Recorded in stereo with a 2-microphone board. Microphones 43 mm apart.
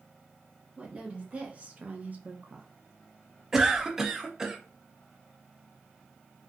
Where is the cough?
15° right (ahead or behind), 0.7 m.